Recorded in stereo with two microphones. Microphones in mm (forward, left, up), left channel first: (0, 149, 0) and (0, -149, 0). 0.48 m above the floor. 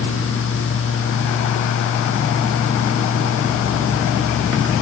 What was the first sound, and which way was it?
Only background noise.